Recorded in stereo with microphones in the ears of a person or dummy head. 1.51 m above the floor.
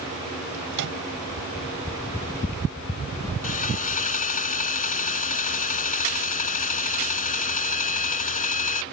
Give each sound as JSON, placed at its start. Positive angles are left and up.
{"t": 0.7, "sound": "a microwave", "side_deg": -60}
{"t": 3.4, "sound": "sawing", "side_deg": 45}